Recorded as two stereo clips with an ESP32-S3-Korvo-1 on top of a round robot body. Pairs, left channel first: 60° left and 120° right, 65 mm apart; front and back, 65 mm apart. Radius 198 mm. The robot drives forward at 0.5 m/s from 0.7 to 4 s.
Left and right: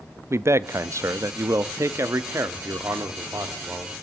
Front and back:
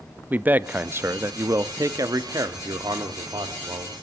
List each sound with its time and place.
0.3 s a man speaking: 130° right, 0.8 m; by 3.9 s 170° right, 2 m